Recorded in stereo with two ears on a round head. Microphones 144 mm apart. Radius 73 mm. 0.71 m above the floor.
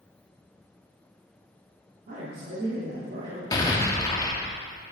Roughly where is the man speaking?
Right.